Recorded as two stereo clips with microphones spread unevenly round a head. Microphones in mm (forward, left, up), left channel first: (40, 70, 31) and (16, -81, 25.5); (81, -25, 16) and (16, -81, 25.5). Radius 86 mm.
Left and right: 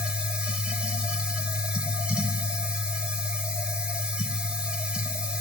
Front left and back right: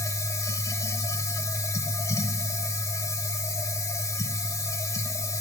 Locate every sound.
0.0 s a machine running: 15° right, 1.5 m